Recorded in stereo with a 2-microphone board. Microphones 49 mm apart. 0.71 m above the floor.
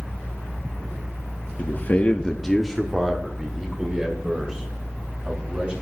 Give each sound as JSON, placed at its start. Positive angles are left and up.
{"t": 1.6, "sound": "a man speaking", "side_deg": 55, "distance_m": 0.8}